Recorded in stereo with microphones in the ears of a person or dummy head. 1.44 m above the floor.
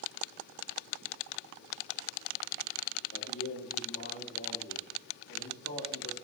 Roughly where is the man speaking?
Left.